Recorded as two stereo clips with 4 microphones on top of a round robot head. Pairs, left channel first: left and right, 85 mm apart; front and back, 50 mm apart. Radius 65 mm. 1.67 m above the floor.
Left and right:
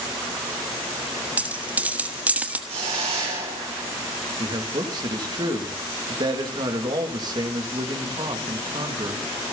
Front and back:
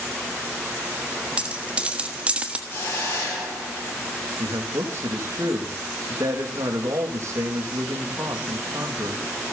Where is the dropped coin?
135° right, 1.1 m.